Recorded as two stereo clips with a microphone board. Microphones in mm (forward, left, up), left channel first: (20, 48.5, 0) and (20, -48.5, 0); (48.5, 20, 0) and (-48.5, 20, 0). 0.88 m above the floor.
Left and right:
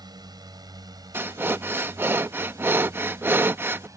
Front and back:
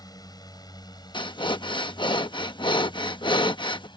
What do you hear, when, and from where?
0.0 s a drone: 50° right; by 4.0 s 35° right
1.1 s breathing: 25° right